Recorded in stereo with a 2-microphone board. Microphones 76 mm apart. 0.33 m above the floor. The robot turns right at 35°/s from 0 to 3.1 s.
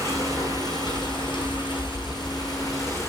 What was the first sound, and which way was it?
Running water, 35° left.